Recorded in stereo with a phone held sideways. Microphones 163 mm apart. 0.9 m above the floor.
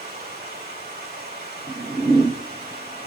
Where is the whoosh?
25° right (ahead or behind), 0.8 m.